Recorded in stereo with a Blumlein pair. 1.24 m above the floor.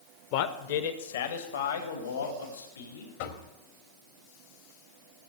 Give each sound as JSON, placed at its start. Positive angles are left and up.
{"t": 0.3, "sound": "a man speaking", "azimuth_deg": 45, "distance_m": 1.0}
{"t": 3.2, "sound": "knocking", "azimuth_deg": 55, "distance_m": 1.6}